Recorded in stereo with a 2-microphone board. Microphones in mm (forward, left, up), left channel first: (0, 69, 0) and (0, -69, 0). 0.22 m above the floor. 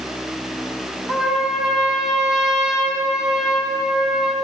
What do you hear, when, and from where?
1.1 s a trumpet: 5° right (ahead or behind), 2 m